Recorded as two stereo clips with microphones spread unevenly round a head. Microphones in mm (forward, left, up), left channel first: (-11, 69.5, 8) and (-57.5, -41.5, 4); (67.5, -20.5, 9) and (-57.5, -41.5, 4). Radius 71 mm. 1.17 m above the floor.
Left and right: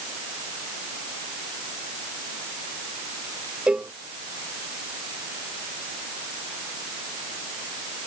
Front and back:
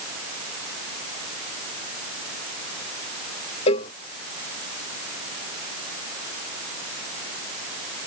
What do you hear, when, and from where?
3.7 s a cowbell: 30° right